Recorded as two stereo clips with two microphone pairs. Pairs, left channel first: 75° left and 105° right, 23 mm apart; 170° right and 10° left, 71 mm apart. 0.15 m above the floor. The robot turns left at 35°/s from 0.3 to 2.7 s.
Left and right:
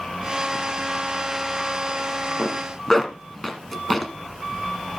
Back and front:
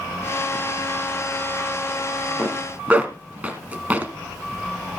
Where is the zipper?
20° left, 1.1 m; by 4.1 s 10° left, 1.1 m.